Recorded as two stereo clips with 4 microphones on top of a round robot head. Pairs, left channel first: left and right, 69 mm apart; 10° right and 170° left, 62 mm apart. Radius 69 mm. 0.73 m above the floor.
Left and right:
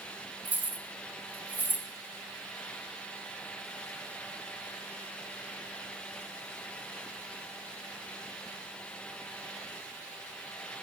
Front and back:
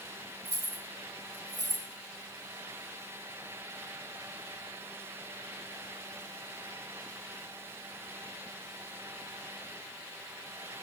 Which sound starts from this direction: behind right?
Keys jangling, at 0.5 s.